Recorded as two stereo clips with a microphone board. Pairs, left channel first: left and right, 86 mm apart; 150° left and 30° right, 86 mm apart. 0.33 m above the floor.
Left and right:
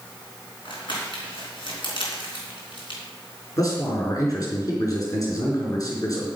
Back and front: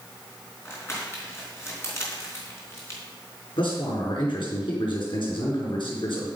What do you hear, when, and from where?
0.7 s crumpling: 90° left, 4 m
3.6 s a man speaking: 135° left, 4 m